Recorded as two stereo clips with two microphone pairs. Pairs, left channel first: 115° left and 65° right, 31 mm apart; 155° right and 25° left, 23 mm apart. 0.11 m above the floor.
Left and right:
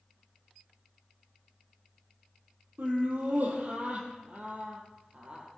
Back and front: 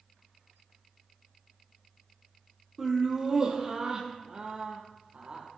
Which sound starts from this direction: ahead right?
Laughter, at 2.8 s.